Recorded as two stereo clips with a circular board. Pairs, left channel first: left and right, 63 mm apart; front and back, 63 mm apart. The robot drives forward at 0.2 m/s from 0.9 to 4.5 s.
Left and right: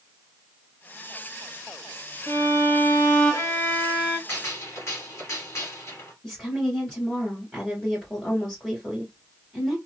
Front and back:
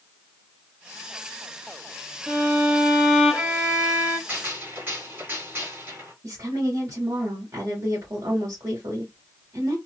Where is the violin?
95° left, 0.9 m; by 4.2 s 125° left, 1.0 m.